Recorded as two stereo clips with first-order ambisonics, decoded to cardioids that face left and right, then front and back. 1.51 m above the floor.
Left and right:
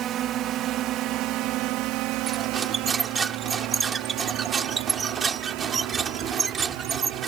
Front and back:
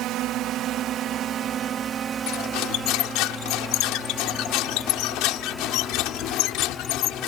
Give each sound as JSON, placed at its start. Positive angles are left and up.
{"t": 0.0, "sound": "a drone", "azimuth_deg": -140}
{"t": 2.3, "sound": "cutlery clinking", "azimuth_deg": -20}